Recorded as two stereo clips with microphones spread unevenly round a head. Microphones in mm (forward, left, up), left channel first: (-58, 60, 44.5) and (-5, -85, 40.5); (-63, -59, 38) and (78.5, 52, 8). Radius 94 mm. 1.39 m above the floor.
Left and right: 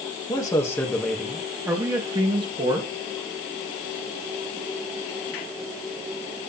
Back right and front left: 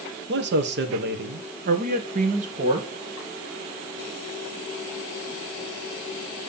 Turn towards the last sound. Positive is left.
turn(degrees=-15)